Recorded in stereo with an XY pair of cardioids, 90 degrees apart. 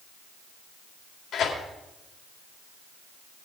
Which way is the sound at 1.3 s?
70° left.